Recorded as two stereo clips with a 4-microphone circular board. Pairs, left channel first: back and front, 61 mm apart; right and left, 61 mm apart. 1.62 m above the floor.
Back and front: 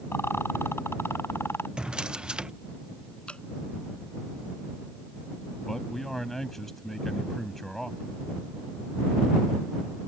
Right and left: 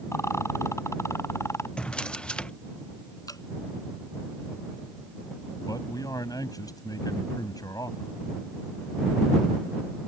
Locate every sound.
0.1 s a rattle: 130° right
1.8 s a drawer: 45° right
3.3 s dripping: 110° right
5.7 s a man speaking: 95° right